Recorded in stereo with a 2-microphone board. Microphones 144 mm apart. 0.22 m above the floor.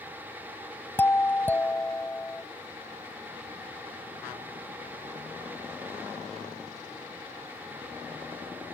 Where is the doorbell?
15° left (ahead or behind).